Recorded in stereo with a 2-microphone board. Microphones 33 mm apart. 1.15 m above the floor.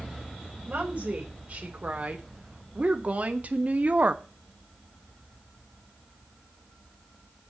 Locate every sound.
0.7 s a woman speaking: 40° right (ahead or behind), 4.5 m; by 4.2 s 50° right (ahead or behind), 1.1 m